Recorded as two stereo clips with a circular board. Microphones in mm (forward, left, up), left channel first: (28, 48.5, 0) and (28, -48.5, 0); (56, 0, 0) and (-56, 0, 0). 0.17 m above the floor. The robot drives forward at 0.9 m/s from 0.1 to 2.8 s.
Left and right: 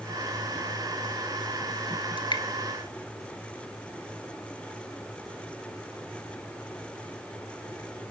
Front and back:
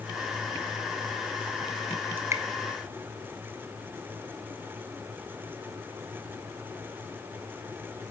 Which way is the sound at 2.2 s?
110° left.